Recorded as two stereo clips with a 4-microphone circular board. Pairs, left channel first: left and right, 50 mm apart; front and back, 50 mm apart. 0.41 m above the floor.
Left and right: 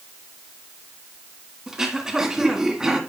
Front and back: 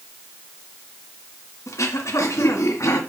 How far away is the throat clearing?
About 1.8 m.